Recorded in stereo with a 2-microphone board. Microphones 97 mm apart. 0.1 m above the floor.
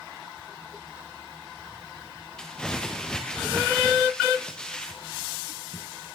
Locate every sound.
2.4 s crumpling: 10° left (ahead or behind), 3 m